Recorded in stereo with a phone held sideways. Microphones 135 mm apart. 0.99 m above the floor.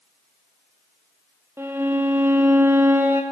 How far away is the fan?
No fan in this recording.